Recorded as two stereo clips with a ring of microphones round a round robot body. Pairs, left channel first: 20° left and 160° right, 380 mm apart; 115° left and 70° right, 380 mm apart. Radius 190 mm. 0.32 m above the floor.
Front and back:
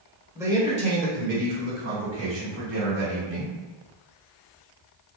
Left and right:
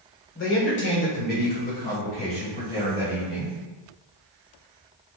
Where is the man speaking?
125° left, 1.3 m; by 3.6 s 170° right, 2.5 m.